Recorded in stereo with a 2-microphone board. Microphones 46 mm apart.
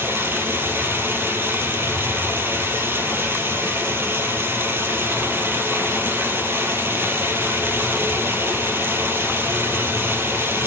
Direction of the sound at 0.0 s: 55° right (ahead or behind).